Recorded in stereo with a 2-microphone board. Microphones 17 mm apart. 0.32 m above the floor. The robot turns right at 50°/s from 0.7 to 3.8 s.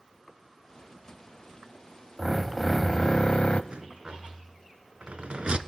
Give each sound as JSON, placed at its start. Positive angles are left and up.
{"t": 2.2, "sound": "a drill", "azimuth_deg": -10, "distance_m": 0.8}
{"t": 3.7, "sound": "a rattle", "side_deg": -65, "distance_m": 0.8}